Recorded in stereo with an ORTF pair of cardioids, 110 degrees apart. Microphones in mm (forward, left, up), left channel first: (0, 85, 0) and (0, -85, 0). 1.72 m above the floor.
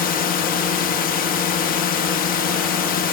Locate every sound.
0.0 s a drone: 65° left